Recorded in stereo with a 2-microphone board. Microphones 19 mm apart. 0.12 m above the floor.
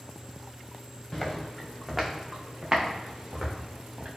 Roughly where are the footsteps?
Left.